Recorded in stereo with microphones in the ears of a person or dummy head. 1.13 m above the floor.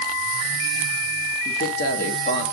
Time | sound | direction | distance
1.4 | a man speaking | 45° left (ahead or behind) | 0.9 m